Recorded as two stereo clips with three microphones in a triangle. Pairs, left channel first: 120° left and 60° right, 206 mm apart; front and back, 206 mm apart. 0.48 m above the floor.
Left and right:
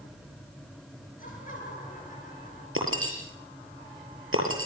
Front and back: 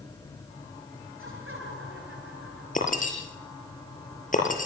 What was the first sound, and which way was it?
Laughter, 170° left.